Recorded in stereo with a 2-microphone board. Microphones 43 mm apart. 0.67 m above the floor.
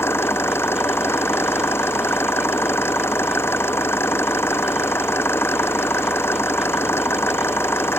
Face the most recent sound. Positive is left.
turn(degrees=70)  # may be behind; listen again after turning